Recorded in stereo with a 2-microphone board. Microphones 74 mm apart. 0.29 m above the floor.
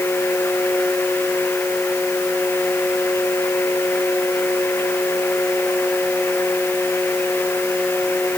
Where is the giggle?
I don't hear a giggle.